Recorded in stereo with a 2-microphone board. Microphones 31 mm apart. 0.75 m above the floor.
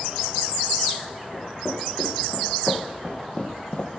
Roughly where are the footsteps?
Centre.